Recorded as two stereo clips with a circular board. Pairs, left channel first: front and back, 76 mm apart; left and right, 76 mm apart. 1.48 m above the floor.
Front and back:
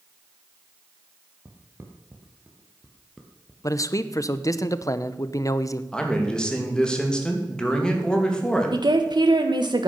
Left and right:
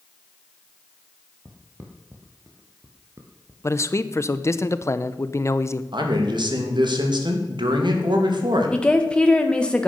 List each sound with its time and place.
1.4 s footsteps: 140° right, 2.5 m; by 3.5 s 80° right, 1.9 m
3.6 s a man speaking: 40° left, 0.7 m
5.9 s a man speaking: 80° right, 2.5 m
8.7 s a woman speaking: 170° left, 1.3 m